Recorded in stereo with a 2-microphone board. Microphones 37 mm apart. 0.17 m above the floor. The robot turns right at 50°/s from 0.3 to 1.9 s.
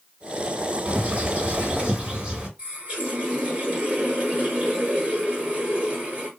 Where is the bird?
105° right, 1.8 m; by 2.5 s 50° right, 1.8 m.